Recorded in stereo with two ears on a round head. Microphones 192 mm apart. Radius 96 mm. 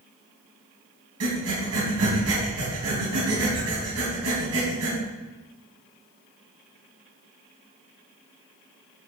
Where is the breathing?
75° right (ahead or behind), 3.5 m.